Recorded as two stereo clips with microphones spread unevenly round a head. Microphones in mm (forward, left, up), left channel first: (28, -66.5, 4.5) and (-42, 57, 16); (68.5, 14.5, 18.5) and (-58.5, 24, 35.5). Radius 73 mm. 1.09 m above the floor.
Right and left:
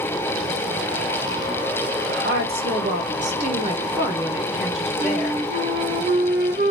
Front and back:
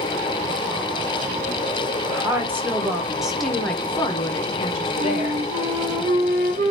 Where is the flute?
155° left, 1.8 m.